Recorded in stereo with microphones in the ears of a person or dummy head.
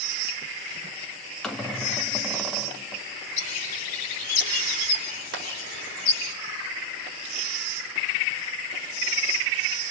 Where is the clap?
75° right (ahead or behind), 4 m.